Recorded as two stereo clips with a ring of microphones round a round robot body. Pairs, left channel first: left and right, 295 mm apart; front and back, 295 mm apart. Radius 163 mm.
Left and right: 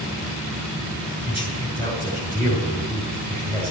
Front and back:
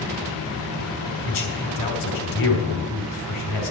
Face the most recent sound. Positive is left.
turn(degrees=-25)